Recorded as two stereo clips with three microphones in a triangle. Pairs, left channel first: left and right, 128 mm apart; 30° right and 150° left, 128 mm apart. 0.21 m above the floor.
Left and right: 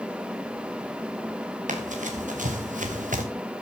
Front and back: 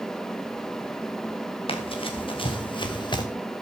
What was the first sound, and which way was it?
Running footsteps, 75° right.